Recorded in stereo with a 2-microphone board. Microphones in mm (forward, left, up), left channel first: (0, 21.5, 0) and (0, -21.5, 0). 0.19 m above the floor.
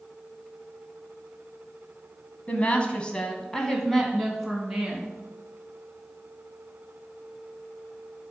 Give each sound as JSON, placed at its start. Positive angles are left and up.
{"t": 2.5, "sound": "a woman speaking", "side_deg": 30, "distance_m": 1.2}